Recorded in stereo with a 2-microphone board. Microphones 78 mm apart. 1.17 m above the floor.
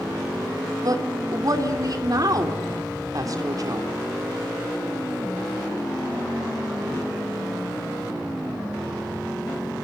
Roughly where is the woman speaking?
Right.